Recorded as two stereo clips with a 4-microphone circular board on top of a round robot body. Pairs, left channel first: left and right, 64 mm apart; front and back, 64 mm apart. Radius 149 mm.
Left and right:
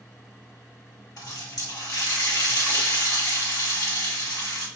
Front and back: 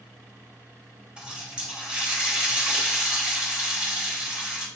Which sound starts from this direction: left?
A running tap, at 1.2 s.